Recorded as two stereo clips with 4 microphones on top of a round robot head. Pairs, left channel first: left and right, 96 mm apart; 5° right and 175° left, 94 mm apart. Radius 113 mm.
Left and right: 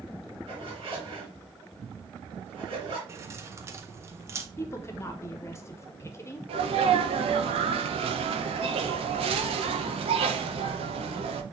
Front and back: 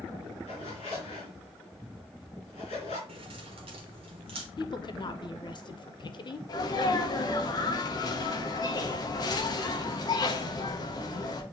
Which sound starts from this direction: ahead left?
A woman speaking, at 4.6 s.